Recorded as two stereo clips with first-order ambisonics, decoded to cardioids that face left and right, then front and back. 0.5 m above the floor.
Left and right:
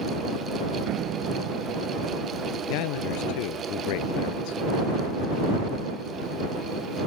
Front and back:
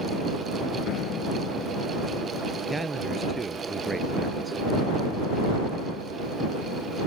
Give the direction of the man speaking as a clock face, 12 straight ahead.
9 o'clock.